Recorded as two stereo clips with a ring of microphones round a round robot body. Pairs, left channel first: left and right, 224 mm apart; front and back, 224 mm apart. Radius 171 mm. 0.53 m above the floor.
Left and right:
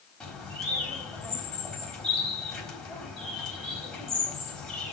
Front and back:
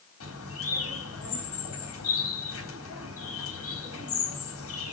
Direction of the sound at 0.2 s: Straight ahead.